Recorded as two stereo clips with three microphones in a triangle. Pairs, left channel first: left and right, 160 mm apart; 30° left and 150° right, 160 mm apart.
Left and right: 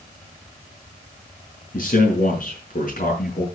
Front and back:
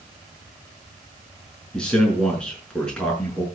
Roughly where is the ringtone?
No ringtone in this recording.